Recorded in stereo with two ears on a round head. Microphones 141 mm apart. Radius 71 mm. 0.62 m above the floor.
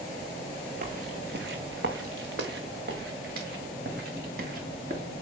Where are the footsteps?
50° right (ahead or behind), 2.0 m; by 5.0 s 60° right (ahead or behind), 5.5 m.